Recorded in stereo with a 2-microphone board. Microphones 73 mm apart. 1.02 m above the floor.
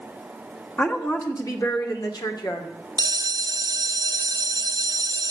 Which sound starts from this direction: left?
A woman speaking, at 0.8 s.